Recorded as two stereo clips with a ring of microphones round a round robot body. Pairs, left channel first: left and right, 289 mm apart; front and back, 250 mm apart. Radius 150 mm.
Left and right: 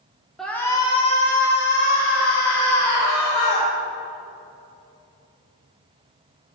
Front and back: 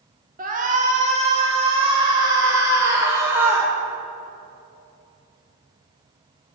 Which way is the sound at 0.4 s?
Straight behind.